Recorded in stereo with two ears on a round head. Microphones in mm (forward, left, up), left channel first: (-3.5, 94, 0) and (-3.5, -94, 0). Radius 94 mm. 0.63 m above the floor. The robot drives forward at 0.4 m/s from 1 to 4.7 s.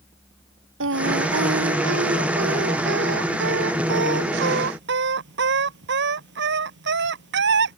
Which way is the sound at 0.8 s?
65° right (ahead or behind).